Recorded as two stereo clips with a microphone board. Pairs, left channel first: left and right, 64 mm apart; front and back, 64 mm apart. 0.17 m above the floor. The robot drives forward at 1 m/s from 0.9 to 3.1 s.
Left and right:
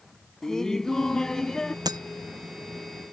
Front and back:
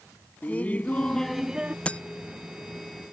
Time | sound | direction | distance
0.4 | laughter | 20° left | ?
1.9 | breaking glass | 70° right | ?